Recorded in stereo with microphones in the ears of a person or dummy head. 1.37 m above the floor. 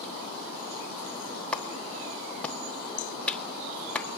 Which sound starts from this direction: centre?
A clap, at 1.5 s.